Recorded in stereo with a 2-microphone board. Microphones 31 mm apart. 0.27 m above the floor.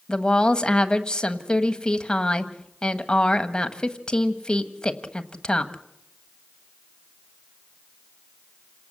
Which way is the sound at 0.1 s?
25° left (ahead or behind).